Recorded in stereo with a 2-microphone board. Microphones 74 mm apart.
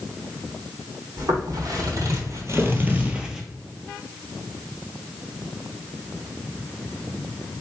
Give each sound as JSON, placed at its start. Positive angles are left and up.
{"t": 1.2, "sound": "footsteps", "side_deg": -55, "distance_m": 1.8}